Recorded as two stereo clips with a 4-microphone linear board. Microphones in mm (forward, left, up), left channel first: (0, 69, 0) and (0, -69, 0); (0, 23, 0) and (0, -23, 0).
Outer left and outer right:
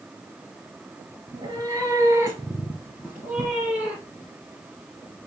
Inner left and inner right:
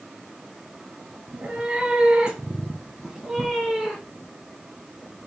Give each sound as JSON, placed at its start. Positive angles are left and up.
{"t": 1.3, "sound": "a cat meowing", "side_deg": -30, "distance_m": 1.8}